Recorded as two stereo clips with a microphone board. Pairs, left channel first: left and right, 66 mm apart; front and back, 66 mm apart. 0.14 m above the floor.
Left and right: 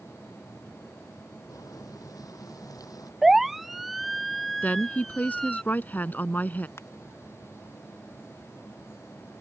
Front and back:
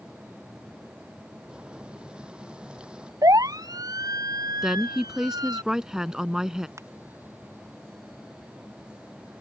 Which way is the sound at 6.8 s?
140° left.